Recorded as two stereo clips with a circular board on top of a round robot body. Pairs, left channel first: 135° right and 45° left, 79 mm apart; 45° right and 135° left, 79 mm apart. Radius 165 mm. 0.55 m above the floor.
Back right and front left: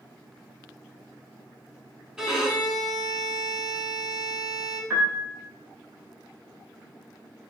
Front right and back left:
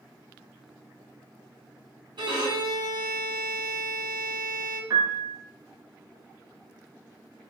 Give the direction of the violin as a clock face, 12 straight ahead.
8 o'clock.